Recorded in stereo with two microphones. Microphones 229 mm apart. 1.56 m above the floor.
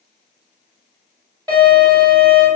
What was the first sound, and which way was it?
A violin, 20° right (ahead or behind).